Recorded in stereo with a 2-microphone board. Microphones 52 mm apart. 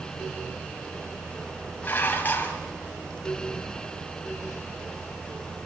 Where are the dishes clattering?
35° left (ahead or behind), 3 m.